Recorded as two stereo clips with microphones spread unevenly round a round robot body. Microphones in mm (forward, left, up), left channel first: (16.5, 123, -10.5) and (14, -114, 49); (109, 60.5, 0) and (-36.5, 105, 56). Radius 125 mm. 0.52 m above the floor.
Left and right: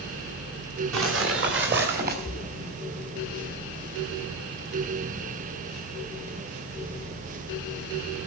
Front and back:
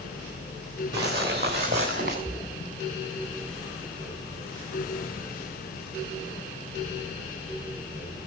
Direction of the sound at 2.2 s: 40° left.